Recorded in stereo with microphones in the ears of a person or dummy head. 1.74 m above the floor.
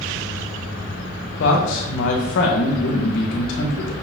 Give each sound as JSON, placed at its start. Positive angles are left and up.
{"t": 1.4, "sound": "a man speaking", "side_deg": 60, "distance_m": 2.0}